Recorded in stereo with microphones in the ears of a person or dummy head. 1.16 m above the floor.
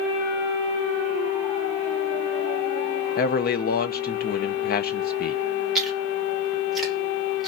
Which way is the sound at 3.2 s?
45° left (ahead or behind).